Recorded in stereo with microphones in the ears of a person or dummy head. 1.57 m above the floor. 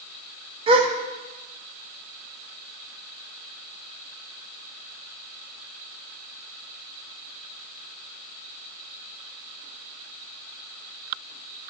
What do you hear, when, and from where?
0.7 s a gasp: 40° right (ahead or behind), 0.8 m